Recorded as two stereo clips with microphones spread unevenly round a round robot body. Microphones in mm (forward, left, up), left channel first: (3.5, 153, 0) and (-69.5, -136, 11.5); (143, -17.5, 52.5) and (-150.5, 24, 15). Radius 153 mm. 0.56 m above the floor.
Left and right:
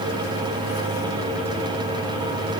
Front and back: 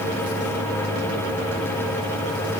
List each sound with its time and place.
Only background noise.